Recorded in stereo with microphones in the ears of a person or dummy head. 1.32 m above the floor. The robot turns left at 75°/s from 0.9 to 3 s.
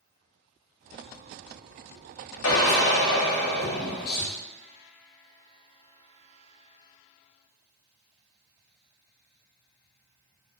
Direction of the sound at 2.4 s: 95° left.